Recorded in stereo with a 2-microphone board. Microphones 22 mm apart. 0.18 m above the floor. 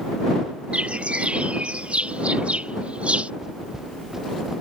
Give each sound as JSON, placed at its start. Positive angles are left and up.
{"t": 0.7, "sound": "a bird", "side_deg": -75}
{"t": 3.4, "sound": "footsteps", "side_deg": -20}